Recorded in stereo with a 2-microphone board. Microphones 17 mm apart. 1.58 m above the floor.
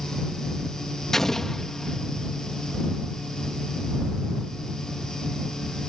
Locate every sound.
1.1 s an explosion: 25° left (ahead or behind)